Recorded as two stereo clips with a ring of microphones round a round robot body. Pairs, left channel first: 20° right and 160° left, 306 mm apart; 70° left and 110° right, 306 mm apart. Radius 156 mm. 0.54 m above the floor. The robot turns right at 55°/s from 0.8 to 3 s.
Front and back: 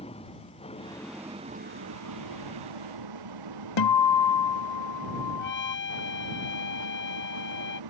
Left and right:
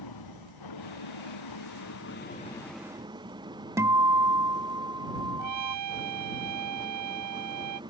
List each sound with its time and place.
0.0 s an engine running: 50° left; by 7.9 s 170° left
3.8 s a guitar: 30° right
5.4 s a trumpet: 80° right